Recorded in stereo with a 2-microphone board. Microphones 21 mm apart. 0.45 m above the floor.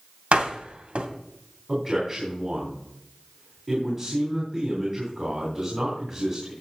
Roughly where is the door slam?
Right.